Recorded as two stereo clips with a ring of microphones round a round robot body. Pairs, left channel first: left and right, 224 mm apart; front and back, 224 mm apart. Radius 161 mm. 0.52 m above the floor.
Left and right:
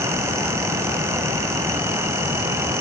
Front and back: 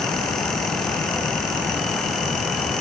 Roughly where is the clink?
I don't hear a clink.